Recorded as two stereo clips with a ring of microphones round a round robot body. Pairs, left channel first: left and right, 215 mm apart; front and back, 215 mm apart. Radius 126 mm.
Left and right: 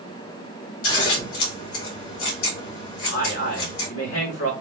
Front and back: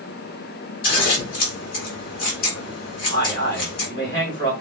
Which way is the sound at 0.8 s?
50° left.